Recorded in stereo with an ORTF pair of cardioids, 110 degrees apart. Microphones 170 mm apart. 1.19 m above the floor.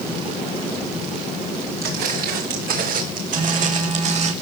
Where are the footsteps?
65° right, 7.5 m; by 4.3 s 40° right, 5.5 m.